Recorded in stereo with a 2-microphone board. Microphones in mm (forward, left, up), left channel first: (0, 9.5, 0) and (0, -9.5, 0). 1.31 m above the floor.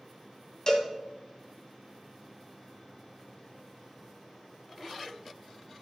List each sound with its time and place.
0.7 s a cowbell: 30° left (ahead or behind), 2 m